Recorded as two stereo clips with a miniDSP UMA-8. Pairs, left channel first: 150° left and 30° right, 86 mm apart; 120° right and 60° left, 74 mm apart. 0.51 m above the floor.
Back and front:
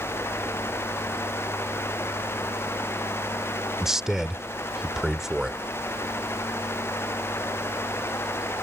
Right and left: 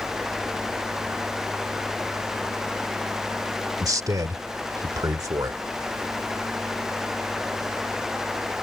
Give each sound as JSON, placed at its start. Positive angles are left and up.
{"t": 3.8, "sound": "a man speaking", "azimuth_deg": 55}